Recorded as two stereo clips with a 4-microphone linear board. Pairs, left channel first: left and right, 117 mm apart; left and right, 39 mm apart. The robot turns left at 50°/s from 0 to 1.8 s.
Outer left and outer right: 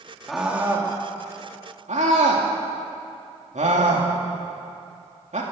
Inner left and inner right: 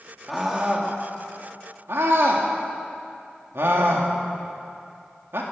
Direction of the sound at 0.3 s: Centre (ahead or behind).